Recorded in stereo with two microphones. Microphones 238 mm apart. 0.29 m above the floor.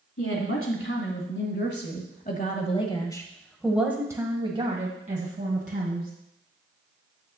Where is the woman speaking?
65° left (ahead or behind), 2 m; by 6.1 s 45° right (ahead or behind), 2 m.